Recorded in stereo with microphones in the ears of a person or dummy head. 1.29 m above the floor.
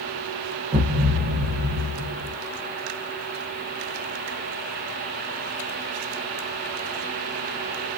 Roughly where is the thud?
Right.